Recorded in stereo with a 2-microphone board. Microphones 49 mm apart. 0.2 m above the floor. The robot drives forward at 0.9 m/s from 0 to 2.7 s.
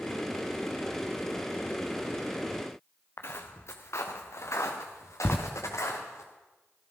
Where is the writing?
45° left (ahead or behind), 0.9 m.